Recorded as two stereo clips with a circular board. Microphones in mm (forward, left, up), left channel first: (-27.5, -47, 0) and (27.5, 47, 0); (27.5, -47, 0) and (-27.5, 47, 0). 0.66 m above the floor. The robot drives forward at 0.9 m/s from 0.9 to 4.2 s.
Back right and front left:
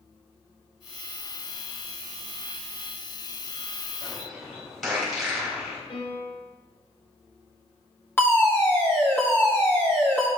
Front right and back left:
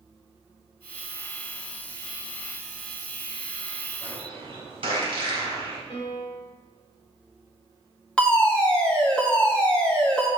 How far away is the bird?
About 3.5 m.